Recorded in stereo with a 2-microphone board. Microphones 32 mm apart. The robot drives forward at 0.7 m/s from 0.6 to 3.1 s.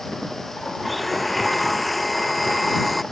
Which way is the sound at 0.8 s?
5° left (ahead or behind).